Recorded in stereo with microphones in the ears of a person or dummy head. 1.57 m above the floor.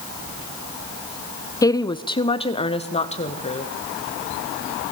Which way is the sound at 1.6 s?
20° left (ahead or behind).